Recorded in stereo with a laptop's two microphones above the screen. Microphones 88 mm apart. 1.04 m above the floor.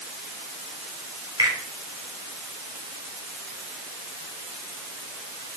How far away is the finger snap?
About 4 m.